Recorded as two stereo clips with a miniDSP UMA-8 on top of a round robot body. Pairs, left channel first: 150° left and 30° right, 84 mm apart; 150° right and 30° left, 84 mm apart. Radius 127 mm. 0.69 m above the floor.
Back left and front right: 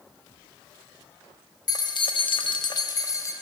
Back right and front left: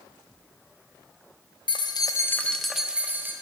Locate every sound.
1.7 s keys jangling: 170° right, 1.0 m; by 3.3 s 95° left, 1.4 m